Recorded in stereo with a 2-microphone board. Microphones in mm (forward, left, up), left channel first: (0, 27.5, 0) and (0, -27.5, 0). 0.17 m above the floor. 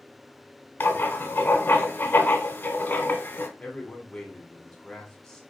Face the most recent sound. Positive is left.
turn(degrees=10)  # may be behind; listen again after turning